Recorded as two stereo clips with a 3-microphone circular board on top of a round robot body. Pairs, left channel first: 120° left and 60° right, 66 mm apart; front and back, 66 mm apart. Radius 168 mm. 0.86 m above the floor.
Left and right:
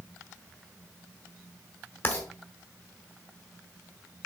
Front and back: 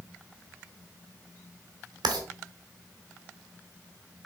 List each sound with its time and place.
2.0 s writing: straight behind, 1.7 m